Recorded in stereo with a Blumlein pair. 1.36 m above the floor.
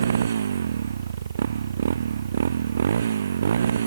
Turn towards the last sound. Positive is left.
turn(degrees=-65)